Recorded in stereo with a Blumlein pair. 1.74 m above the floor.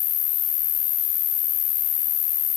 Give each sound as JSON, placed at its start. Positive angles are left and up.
{"t": 0.0, "sound": "an insect", "azimuth_deg": 30}